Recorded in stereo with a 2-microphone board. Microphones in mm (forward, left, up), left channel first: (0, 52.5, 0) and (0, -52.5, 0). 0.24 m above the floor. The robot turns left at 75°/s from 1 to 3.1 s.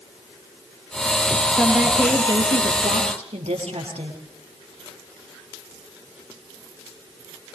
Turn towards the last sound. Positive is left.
turn(degrees=-100)